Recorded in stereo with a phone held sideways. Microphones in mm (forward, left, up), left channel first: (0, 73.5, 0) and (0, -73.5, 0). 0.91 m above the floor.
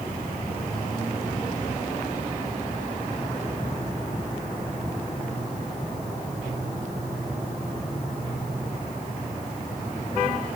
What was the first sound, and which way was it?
Only background noise.